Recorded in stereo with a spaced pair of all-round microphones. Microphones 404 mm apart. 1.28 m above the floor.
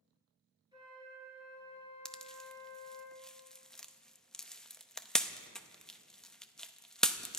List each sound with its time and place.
0.7 s a flute: 10° right (ahead or behind), 5.5 m
2.0 s a pop: centre (ahead or behind), 0.6 m